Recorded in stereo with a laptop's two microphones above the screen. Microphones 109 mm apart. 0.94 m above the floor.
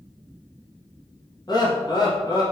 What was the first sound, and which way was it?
Laughter, 40° left (ahead or behind).